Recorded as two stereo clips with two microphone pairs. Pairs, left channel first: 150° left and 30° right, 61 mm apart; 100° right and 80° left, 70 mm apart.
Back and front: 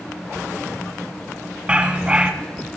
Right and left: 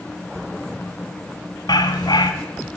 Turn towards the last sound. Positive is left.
turn(degrees=-105)